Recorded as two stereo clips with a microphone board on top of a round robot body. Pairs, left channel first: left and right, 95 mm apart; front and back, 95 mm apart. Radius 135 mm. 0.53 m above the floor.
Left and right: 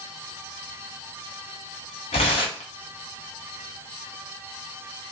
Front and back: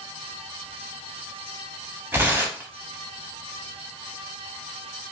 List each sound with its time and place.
2.1 s tearing paper: 110° left, 0.8 m